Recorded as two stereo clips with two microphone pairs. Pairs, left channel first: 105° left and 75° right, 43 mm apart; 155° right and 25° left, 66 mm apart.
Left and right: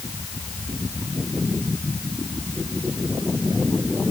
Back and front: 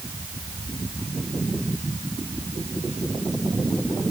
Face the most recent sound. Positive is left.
No sound to turn to.